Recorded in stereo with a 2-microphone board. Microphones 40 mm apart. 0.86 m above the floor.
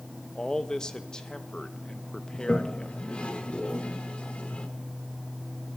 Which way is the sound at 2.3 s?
30° left (ahead or behind).